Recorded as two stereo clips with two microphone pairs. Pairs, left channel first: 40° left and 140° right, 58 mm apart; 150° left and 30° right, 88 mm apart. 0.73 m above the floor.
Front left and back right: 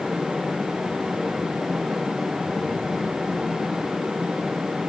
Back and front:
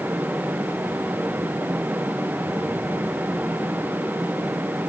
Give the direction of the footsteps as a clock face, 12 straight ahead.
No footsteps in this recording.